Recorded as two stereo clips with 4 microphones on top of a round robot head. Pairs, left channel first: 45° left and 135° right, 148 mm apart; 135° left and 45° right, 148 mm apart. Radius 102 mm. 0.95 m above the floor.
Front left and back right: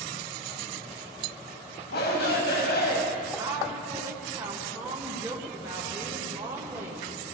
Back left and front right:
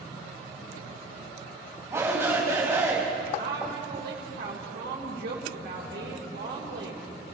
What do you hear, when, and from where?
1.9 s a shout: 30° left, 6 m
3.4 s a woman speaking: 65° right, 3.5 m